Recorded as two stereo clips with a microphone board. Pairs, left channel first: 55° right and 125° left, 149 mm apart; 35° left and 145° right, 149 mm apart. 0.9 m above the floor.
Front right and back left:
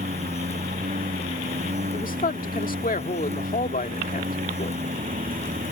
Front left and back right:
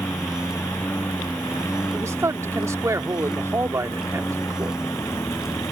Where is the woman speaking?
75° right.